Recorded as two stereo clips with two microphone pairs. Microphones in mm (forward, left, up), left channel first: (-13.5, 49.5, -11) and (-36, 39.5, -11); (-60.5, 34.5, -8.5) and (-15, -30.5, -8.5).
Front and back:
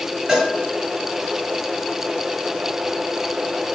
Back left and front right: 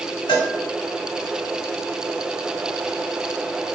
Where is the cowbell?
140° left, 1.7 m.